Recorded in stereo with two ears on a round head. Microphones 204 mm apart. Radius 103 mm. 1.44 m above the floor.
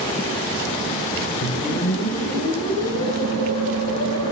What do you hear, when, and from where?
1.4 s a whoosh: 70° left (ahead or behind), 3 m